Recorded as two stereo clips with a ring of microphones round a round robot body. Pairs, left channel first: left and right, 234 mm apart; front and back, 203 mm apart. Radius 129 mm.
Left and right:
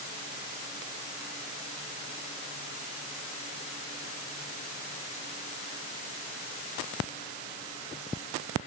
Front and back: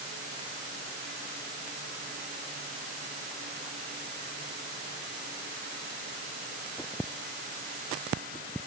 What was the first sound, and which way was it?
Only background noise.